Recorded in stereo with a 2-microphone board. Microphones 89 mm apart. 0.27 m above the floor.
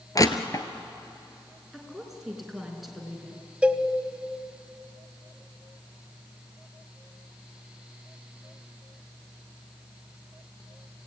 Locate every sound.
0.1 s crushing: 40° left (ahead or behind), 1.1 m
1.7 s a woman speaking: centre (ahead or behind), 4 m
3.6 s a cowbell: 15° right (ahead or behind), 0.8 m